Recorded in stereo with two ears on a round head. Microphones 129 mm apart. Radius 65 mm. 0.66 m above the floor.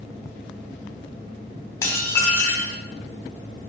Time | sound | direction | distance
1.8 | dishes clattering | 20° left (ahead or behind) | 1.3 m